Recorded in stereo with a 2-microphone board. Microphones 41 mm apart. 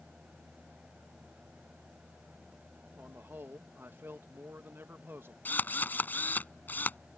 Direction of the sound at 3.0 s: 60° right (ahead or behind).